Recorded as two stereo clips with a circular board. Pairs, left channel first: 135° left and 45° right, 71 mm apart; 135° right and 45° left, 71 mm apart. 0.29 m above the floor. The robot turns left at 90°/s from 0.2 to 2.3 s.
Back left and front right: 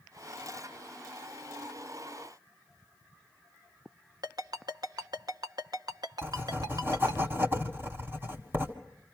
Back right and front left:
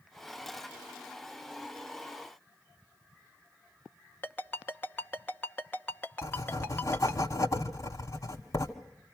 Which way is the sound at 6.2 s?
100° right.